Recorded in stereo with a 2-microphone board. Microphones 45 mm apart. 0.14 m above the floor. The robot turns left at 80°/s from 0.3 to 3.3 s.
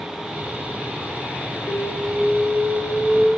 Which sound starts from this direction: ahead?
An alarm, at 1.7 s.